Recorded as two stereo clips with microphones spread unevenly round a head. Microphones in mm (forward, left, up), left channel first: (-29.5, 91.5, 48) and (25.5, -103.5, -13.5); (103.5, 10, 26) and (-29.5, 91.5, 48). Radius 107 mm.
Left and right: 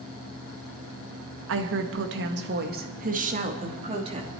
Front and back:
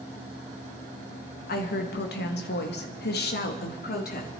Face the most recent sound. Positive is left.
turn(degrees=-10)